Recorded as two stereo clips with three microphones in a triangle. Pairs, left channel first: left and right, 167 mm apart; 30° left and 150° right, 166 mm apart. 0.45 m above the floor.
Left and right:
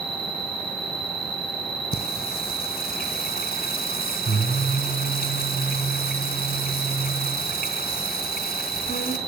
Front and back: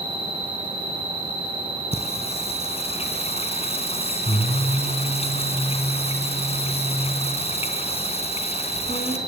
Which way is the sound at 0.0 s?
30° left.